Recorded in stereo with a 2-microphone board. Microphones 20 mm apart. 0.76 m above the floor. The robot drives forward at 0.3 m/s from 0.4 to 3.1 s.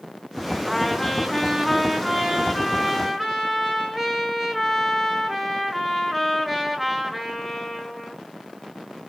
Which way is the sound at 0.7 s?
Centre (ahead or behind).